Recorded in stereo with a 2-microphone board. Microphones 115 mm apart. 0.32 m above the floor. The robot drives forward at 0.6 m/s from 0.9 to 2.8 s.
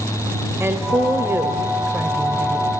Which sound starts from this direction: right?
A woman speaking, at 0.6 s.